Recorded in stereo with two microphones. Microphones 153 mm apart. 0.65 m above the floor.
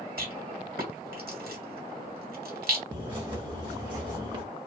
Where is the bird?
35° right (ahead or behind), 1.5 m.